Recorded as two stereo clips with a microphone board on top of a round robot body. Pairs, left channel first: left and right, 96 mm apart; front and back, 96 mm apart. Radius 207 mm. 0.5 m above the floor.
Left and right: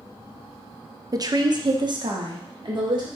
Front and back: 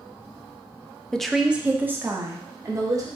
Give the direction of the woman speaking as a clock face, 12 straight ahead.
3 o'clock.